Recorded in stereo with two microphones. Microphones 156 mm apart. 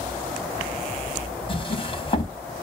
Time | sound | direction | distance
1.5 | a drawer | 35° left (ahead or behind) | 1.1 m